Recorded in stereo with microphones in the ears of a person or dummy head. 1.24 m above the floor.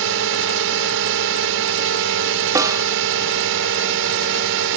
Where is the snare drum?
20° right (ahead or behind).